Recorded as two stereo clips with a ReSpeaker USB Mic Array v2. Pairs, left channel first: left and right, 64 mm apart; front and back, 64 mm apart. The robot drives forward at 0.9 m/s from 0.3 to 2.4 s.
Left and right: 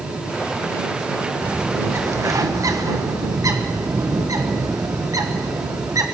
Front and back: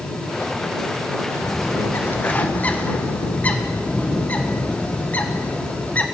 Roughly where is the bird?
Ahead right.